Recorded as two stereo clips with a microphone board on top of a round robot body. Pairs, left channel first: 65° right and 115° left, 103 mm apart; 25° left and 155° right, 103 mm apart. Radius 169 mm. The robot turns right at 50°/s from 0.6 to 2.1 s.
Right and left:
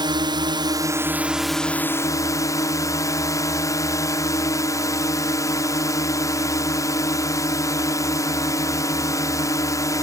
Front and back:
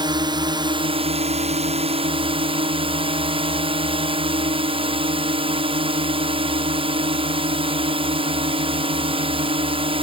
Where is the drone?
160° left; by 10.0 s 125° right.